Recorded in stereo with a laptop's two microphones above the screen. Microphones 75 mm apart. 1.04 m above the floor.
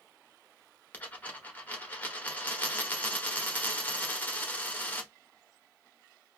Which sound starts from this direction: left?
A dropped coin, at 0.9 s.